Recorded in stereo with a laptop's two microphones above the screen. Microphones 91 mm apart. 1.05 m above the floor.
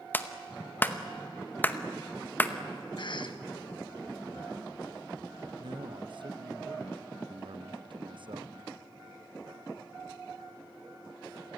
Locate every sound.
0.1 s a clap: 20° left (ahead or behind), 0.8 m
3.0 s a cough: 60° left (ahead or behind), 1.3 m
5.6 s a man speaking: 60° right (ahead or behind), 0.8 m